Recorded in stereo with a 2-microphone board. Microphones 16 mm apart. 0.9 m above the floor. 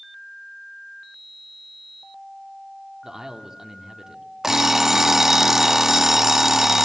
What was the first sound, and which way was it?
A man speaking, 40° right (ahead or behind).